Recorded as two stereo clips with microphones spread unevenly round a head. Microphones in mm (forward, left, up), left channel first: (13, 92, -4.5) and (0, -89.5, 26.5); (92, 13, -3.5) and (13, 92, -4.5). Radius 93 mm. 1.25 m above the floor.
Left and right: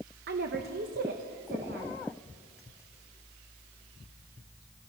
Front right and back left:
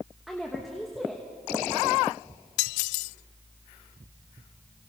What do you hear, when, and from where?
0.3 s a woman speaking: 135° right, 1.2 m